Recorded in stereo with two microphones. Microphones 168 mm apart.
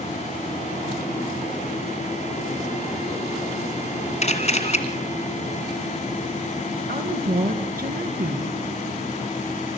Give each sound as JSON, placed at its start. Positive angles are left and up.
{"t": 4.2, "sound": "a camera shutter", "side_deg": 40, "distance_m": 2.0}
{"t": 6.9, "sound": "a woman speaking", "side_deg": -65, "distance_m": 2.5}